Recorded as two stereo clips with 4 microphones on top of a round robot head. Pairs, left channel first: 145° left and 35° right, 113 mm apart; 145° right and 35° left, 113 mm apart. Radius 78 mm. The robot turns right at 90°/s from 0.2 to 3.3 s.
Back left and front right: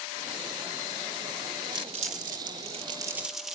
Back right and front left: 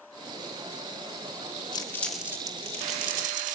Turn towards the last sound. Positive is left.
turn(degrees=50)